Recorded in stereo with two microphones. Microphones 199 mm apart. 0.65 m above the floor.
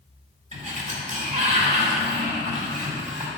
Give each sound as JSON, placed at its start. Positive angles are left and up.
{"t": 0.5, "sound": "a sliding door", "side_deg": -40, "distance_m": 1.8}